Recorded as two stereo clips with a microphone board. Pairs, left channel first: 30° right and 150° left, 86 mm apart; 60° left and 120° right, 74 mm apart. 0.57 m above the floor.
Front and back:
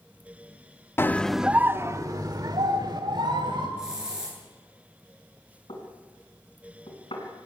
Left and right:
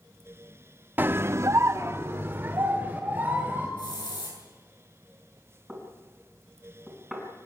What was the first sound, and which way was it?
A scream, 75° right.